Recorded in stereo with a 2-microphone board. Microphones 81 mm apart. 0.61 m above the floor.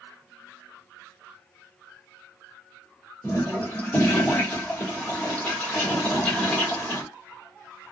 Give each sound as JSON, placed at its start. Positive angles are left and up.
{"t": 3.2, "sound": "a toilet flushing", "side_deg": 25, "distance_m": 1.5}